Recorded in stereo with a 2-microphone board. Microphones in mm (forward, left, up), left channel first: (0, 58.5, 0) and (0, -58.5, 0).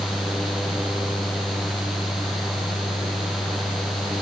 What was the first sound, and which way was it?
Only background noise.